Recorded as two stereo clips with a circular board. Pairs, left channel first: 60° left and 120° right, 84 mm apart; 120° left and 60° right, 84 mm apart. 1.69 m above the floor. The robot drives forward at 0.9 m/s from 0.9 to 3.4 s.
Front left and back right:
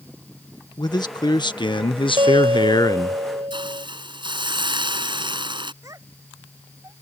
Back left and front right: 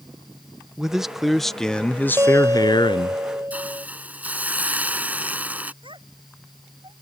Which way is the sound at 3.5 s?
130° right.